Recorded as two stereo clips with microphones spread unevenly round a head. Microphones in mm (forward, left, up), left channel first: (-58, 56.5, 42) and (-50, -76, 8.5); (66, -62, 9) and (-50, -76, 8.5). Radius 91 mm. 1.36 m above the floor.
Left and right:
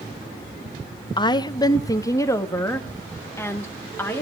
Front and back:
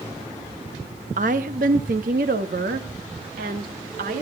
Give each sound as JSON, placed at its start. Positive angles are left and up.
{"t": 1.2, "sound": "a woman speaking", "azimuth_deg": 145, "distance_m": 0.9}